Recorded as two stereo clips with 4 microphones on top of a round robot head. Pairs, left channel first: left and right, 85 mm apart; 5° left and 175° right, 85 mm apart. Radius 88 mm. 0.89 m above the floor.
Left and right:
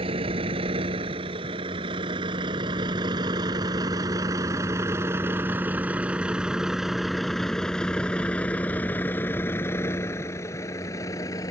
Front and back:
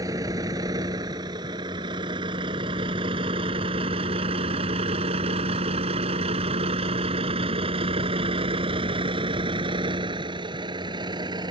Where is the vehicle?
115° right; by 11.5 s 150° left.